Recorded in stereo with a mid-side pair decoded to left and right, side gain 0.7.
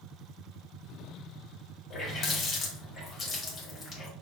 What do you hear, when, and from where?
1.9 s a running tap: 30° left, 1.8 m